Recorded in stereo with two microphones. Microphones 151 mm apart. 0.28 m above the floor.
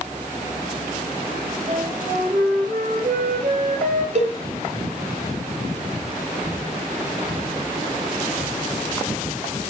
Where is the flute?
65° right (ahead or behind), 4.5 m.